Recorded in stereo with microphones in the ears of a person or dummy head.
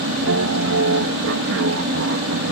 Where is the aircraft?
65° right (ahead or behind).